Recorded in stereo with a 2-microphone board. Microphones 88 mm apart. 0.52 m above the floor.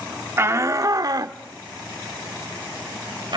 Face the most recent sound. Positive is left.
turn(degrees=-65)  # may be behind; listen again after turning